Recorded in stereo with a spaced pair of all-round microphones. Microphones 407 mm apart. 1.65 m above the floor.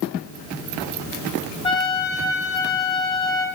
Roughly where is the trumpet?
Centre.